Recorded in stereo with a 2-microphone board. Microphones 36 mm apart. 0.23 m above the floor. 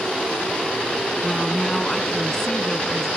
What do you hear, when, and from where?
1.2 s a woman speaking: 15° left (ahead or behind)